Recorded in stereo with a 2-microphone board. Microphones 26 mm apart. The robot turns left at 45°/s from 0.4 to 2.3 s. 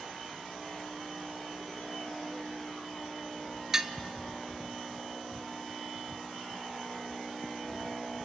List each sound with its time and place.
3.7 s dishes clattering: 20° right (ahead or behind), 0.9 m